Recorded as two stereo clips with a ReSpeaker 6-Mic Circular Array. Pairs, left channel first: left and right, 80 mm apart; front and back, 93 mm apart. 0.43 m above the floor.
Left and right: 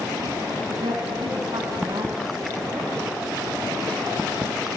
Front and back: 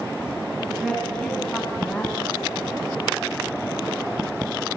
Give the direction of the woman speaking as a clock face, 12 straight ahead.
3 o'clock.